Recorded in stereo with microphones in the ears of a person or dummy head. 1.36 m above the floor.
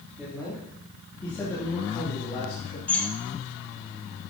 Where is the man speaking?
5° right (ahead or behind), 3 m; by 2.8 s 35° left (ahead or behind), 2.5 m.